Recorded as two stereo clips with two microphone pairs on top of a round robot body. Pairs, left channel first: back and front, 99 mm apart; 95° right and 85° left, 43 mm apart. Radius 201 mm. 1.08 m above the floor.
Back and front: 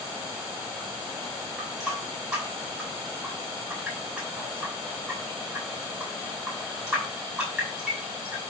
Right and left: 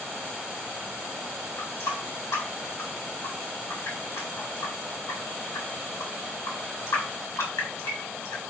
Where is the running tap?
85° right, 4 m.